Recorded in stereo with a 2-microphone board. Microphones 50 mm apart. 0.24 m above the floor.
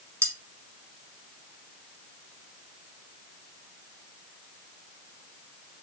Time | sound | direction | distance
0.2 | cutlery clinking | 65° right (ahead or behind) | 1.1 m